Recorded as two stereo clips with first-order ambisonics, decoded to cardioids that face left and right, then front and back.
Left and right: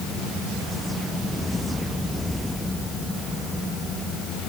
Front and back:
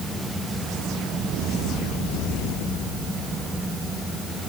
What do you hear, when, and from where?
Only background noise.